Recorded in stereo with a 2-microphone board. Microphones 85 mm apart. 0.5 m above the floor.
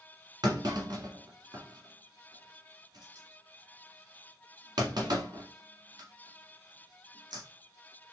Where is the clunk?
55° right (ahead or behind), 1.5 m.